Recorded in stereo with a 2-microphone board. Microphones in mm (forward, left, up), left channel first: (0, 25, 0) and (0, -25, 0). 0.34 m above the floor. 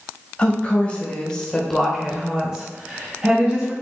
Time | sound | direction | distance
0.4 | a woman speaking | 25° left (ahead or behind) | 1.3 m